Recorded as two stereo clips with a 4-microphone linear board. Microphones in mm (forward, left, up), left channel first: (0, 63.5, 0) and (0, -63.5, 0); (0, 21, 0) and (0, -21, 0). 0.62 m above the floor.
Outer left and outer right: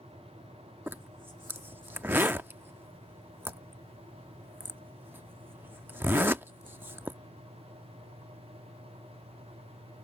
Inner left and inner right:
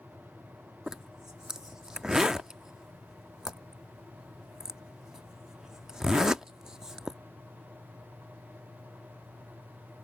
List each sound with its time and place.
0.9 s a zipper: 15° right (ahead or behind)